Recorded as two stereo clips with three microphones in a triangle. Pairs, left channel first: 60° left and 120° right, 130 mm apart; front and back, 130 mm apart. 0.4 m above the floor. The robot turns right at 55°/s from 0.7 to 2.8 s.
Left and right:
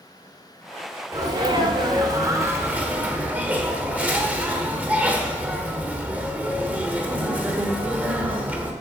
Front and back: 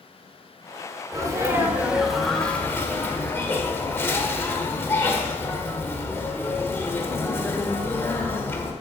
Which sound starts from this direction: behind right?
A sneeze, at 1.1 s.